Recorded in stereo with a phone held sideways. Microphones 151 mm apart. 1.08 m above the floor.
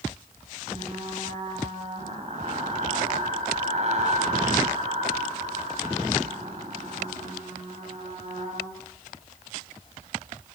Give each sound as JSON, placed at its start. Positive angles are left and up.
{"t": 0.7, "sound": "frying", "side_deg": -45, "distance_m": 8.0}